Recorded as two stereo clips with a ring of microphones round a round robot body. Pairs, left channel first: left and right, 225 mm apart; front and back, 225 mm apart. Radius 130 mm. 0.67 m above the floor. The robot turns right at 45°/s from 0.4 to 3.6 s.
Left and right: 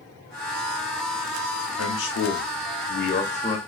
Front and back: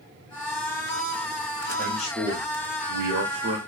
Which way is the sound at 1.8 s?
80° left.